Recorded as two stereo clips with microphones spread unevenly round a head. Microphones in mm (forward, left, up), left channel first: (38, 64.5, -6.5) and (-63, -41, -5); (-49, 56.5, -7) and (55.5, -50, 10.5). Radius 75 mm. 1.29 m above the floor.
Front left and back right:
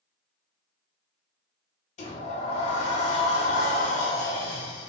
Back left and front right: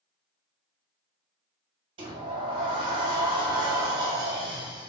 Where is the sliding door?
5° left, 0.6 m.